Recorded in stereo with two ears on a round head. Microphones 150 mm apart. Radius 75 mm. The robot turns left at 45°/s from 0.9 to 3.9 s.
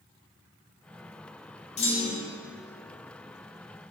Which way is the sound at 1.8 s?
40° left (ahead or behind).